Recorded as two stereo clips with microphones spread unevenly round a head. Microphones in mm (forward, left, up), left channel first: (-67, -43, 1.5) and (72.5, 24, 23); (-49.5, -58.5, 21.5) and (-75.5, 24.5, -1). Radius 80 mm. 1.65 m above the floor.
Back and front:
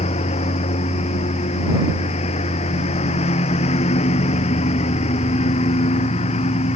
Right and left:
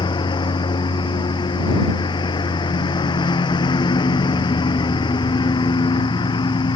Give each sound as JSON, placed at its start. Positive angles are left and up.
{"t": 0.0, "sound": "a lawn mower", "azimuth_deg": -100}